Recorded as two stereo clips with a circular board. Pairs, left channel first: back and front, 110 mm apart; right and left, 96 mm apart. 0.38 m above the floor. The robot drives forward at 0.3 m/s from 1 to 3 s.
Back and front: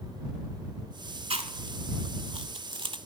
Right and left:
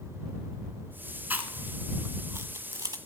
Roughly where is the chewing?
Ahead.